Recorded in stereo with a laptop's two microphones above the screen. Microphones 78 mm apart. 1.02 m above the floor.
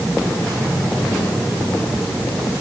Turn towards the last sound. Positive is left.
No sound to turn to.